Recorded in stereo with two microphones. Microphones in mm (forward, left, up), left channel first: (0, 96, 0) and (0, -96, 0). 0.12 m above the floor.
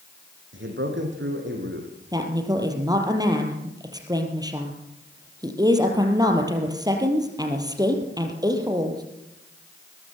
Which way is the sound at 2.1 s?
20° right (ahead or behind).